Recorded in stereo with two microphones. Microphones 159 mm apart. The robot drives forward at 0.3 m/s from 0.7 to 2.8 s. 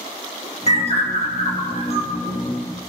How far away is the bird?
About 2.5 m.